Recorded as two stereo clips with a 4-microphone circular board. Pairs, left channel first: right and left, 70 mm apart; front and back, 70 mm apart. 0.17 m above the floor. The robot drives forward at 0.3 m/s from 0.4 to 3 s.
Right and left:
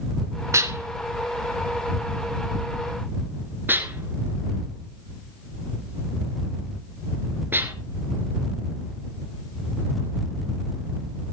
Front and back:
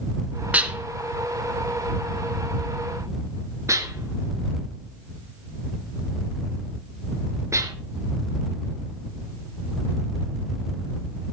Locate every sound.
0.5 s dishes clattering: 115° left, 1.2 m; by 7.7 s 145° left, 1.6 m